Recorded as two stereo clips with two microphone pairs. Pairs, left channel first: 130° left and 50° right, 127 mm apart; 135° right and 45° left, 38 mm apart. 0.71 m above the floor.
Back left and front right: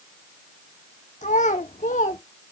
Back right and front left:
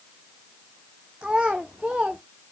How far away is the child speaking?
About 0.8 m.